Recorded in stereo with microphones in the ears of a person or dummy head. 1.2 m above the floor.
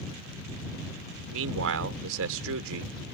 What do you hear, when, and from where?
1.3 s a man speaking: 80° right